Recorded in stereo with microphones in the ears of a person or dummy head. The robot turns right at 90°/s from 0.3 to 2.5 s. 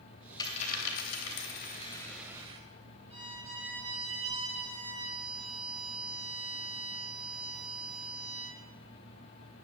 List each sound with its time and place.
0.4 s a dropped coin: 20° left, 3 m; by 2.6 s 150° right, 3 m
3.1 s a violin: 25° right (ahead or behind), 8.5 m